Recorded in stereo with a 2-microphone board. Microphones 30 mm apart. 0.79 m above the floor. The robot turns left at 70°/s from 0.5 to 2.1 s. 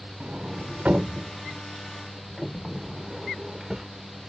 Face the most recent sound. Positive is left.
turn(degrees=-20)  # may be behind; listen again after turning